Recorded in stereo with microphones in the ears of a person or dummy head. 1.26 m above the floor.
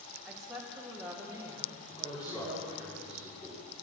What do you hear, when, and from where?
0.2 s a woman speaking: 5° left (ahead or behind), 2.5 m; by 2.9 s 30° right (ahead or behind), 2.0 m
1.9 s a man speaking: 20° left (ahead or behind), 3 m